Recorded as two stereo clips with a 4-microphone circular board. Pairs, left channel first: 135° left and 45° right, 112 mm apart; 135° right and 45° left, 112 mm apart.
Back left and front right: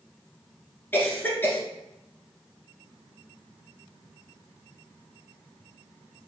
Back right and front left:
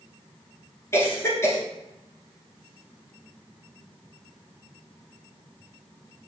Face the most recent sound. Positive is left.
turn(degrees=-170)